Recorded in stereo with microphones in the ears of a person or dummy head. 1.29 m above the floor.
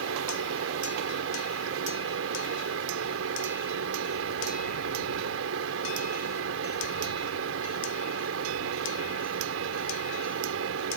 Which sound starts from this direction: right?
A fan, at 0.0 s.